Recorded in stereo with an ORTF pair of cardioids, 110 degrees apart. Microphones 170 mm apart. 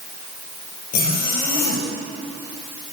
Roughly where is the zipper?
Left.